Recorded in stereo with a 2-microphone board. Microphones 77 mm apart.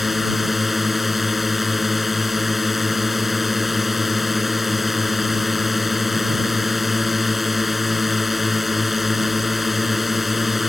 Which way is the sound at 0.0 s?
Centre (ahead or behind).